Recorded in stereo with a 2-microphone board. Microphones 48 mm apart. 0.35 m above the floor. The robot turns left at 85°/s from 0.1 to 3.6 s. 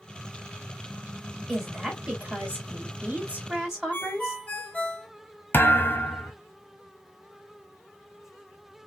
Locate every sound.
1.5 s a woman speaking: 15° left, 1.7 m; by 4.4 s 165° right, 1.7 m
3.9 s a ringtone: 35° left (ahead or behind), 0.8 m
5.5 s a thud: 45° left (ahead or behind), 0.7 m